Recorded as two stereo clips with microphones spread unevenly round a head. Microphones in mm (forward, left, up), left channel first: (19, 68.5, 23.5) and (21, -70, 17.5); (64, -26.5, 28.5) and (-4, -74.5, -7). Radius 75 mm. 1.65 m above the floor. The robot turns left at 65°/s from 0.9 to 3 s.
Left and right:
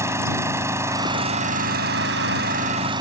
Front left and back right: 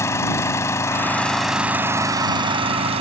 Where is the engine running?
15° right; by 3.0 s 155° right.